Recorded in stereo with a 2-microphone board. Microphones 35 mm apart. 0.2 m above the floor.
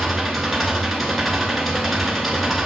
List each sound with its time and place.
0.0 s an engine running: centre (ahead or behind), 1.7 m